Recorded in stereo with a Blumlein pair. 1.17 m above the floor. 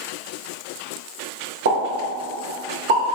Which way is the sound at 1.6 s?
60° right.